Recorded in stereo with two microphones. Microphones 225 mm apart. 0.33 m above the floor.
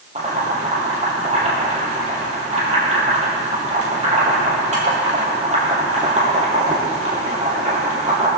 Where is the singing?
I don't hear singing.